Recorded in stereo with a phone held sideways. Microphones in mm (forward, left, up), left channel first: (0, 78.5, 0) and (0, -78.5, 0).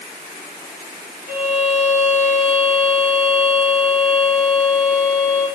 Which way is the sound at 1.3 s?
10° right (ahead or behind).